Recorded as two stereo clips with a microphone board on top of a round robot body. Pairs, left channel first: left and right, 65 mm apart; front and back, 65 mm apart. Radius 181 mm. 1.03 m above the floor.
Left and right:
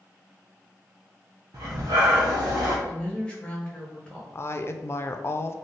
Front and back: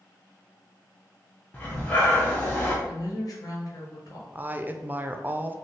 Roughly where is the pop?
No pop in this recording.